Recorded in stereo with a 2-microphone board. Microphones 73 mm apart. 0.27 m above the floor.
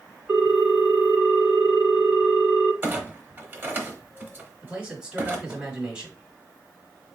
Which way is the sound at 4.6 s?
15° right (ahead or behind).